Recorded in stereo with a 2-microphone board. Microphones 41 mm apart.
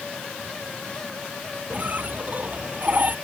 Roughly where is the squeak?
Right.